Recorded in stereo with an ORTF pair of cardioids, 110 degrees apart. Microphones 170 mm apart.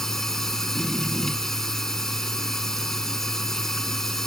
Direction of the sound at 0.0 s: Straight ahead.